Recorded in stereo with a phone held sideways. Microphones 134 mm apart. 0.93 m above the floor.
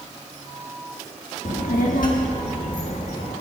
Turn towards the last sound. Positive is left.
turn(degrees=75)  # may be behind; listen again after turning